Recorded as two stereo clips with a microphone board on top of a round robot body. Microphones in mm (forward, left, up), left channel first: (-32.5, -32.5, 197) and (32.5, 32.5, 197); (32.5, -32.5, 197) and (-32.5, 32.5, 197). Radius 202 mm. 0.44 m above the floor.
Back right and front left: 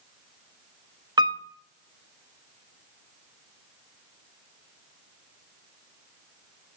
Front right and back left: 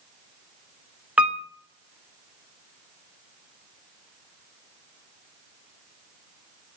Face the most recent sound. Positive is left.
turn(degrees=60)